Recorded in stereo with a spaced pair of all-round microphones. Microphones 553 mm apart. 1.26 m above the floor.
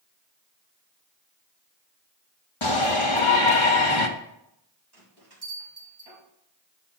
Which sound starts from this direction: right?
A bell, at 4.9 s.